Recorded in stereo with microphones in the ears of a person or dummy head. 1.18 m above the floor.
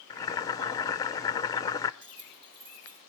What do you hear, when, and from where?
0.1 s boiling: 20° left (ahead or behind), 0.6 m
2.0 s keys jangling: 70° right (ahead or behind), 6.5 m